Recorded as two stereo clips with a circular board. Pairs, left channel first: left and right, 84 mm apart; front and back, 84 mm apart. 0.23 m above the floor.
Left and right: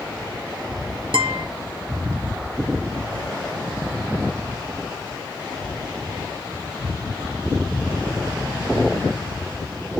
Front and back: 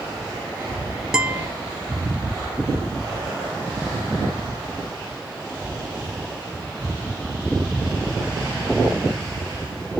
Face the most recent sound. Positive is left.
turn(degrees=-100)